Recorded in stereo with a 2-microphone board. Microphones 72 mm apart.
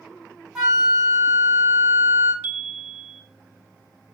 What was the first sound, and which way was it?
A flute, 5° right (ahead or behind).